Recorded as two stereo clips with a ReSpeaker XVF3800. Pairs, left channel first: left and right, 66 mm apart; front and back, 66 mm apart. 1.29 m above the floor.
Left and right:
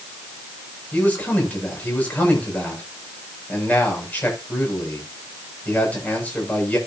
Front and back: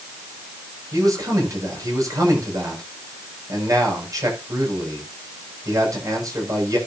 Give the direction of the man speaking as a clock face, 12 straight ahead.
7 o'clock.